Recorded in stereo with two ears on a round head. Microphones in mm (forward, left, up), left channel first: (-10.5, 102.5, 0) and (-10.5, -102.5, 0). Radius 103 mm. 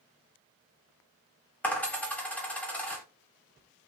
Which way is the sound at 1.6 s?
5° left (ahead or behind).